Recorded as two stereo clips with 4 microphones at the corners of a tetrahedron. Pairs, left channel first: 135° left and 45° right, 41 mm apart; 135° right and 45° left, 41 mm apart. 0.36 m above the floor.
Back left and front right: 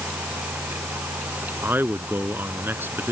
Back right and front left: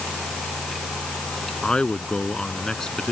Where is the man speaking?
70° right; by 3.1 s 60° right.